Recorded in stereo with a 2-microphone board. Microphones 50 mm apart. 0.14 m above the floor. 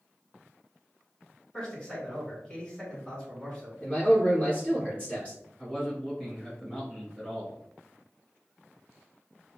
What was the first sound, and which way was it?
A man speaking, 20° left (ahead or behind).